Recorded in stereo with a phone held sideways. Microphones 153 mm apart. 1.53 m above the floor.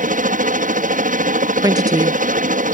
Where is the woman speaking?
25° right (ahead or behind).